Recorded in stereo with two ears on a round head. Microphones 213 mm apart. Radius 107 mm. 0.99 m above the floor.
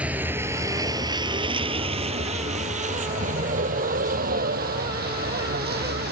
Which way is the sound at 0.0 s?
5° right (ahead or behind).